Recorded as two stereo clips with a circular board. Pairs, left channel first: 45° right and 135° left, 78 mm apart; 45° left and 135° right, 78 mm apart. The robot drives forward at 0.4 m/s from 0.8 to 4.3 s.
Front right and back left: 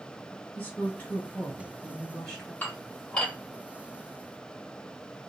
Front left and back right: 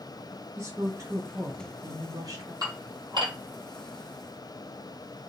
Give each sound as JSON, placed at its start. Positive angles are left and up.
{"t": 0.6, "sound": "a woman speaking", "azimuth_deg": -95, "distance_m": 1.8}
{"t": 2.6, "sound": "dishes clattering", "azimuth_deg": -110, "distance_m": 1.6}